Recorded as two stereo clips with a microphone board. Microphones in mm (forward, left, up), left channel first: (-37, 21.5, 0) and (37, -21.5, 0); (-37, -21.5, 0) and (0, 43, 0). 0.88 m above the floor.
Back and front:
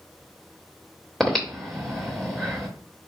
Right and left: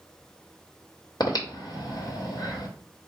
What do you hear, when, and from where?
1.2 s breathing: 125° right, 1.2 m